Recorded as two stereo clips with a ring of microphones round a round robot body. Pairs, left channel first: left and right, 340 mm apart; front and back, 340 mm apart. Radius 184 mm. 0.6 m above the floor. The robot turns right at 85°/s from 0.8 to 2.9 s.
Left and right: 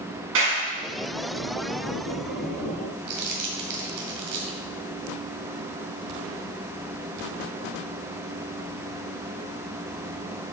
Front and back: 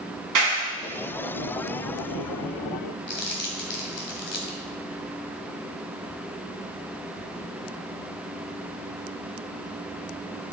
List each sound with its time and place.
0.3 s a clap: 150° right, 5 m
3.1 s crumpling: 55° right, 2 m